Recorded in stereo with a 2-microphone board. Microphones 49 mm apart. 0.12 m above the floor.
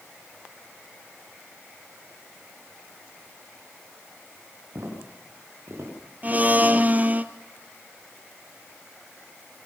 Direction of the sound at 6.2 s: 30° right (ahead or behind).